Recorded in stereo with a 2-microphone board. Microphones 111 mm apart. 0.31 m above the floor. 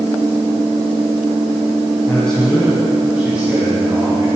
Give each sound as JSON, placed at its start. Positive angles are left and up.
{"t": 2.1, "sound": "a man speaking", "side_deg": 15, "distance_m": 2.5}